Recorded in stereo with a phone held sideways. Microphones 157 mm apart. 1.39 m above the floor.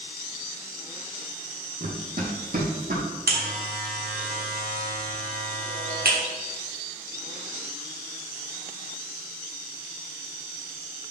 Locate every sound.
1.8 s running footsteps: 65° right (ahead or behind), 3 m
3.3 s a buzzer: 75° right (ahead or behind), 1.6 m